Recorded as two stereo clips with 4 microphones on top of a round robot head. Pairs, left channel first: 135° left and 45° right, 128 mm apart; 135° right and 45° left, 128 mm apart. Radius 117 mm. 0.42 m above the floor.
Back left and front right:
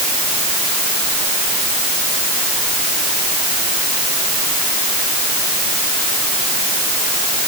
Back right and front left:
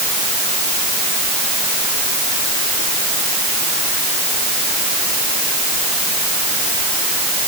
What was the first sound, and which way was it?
Only background noise.